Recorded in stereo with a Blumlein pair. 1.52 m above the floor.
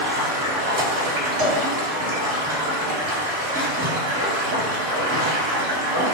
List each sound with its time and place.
0.0 s running water: 55° right, 1.6 m
1.4 s a cowbell: 50° right, 1.8 m